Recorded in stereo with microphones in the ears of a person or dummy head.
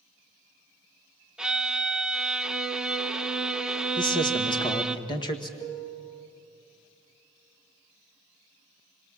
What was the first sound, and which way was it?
A violin, centre (ahead or behind).